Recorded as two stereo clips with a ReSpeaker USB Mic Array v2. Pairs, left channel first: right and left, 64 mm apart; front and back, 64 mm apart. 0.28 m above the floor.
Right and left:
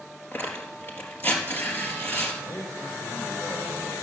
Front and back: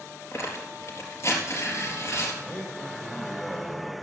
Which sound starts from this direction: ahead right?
Tearing paper, at 0.3 s.